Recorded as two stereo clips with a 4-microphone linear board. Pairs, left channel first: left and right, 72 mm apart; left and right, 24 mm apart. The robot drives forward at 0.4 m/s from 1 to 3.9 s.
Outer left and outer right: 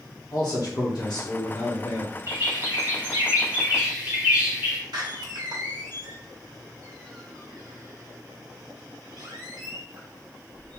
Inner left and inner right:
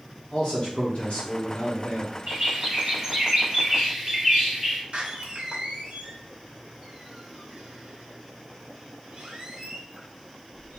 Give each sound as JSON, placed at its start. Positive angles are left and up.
{"t": 0.3, "sound": "a man speaking", "side_deg": 50, "distance_m": 0.8}
{"t": 2.3, "sound": "a bird", "side_deg": -35, "distance_m": 1.3}
{"t": 4.9, "sound": "a door slam", "side_deg": -70, "distance_m": 0.9}